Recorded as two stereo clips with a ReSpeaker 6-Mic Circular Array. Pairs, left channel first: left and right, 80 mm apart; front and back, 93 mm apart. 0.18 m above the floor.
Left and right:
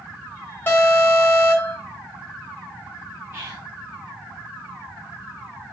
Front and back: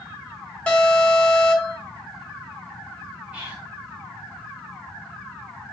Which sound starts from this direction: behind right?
Whispering, at 3.3 s.